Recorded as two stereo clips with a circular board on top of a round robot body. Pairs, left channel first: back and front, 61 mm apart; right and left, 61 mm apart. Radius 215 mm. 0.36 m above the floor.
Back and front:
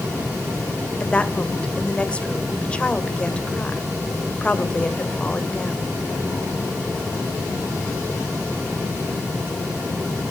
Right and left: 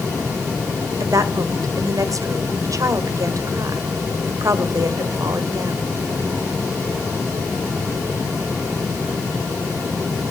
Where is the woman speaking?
110° left, 2 m.